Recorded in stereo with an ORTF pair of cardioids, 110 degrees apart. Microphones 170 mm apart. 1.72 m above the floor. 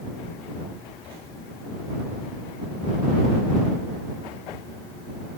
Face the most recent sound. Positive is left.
No sound to turn to.